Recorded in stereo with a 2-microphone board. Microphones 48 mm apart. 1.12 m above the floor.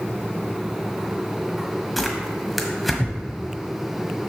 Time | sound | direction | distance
2.0 | tearing paper | centre (ahead or behind) | 1.2 m